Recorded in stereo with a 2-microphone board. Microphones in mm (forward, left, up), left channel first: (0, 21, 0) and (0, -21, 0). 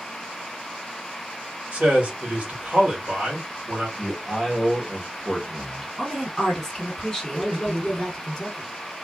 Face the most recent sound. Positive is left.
turn(degrees=10)  # may be behind; listen again after turning